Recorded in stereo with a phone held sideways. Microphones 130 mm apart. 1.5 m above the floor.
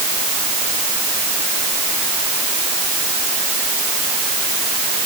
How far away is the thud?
I don't hear a thud.